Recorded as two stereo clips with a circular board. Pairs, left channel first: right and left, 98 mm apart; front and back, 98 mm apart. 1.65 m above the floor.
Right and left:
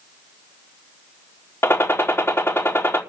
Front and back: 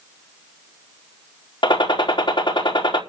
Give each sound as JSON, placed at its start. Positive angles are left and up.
{"t": 1.6, "sound": "a gunshot", "azimuth_deg": -25, "distance_m": 4.0}